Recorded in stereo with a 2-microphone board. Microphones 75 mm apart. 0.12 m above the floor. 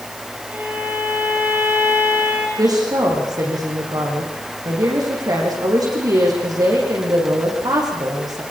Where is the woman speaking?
60° right (ahead or behind), 8 m.